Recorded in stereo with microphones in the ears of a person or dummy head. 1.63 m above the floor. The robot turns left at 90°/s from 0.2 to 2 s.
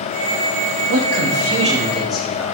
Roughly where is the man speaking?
Right.